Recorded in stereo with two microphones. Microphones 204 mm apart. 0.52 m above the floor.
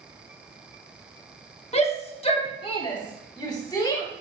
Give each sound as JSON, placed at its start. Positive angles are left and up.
{"t": 1.7, "sound": "a shout", "side_deg": 30, "distance_m": 1.2}